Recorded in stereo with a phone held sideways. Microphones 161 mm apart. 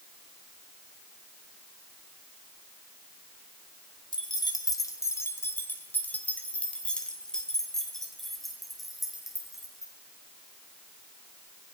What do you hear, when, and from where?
4.1 s keys jangling: 30° left (ahead or behind), 2.5 m; by 9.9 s 5° right (ahead or behind), 6.5 m